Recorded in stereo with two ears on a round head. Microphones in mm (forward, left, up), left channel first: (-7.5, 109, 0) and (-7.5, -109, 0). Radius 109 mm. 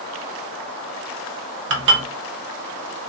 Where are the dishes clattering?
50° right (ahead or behind), 0.8 m.